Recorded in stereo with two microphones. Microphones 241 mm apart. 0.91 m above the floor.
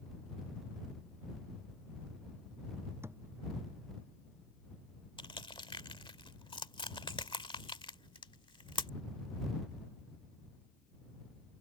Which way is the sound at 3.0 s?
10° right (ahead or behind).